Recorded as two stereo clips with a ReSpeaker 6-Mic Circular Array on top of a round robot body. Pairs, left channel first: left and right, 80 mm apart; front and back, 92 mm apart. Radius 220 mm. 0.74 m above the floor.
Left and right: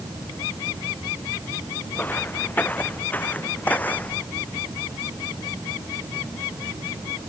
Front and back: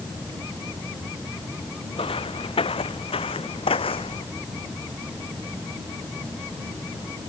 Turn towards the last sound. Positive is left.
turn(degrees=20)